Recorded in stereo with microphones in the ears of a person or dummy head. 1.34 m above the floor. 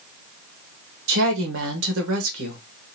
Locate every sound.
1.1 s a woman speaking: 75° right (ahead or behind), 1.1 m